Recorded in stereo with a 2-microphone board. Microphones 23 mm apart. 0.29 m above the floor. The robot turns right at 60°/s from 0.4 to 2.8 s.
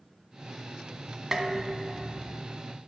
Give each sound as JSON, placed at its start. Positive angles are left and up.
{"t": 1.3, "sound": "dishes clattering", "azimuth_deg": -25, "distance_m": 1.6}